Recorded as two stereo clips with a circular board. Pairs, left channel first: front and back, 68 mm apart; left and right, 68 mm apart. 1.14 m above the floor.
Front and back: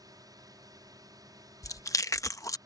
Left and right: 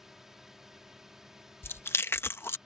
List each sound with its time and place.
0.0 s a drone: 175° right; by 2.7 s 170° right
1.6 s chewing: 35° left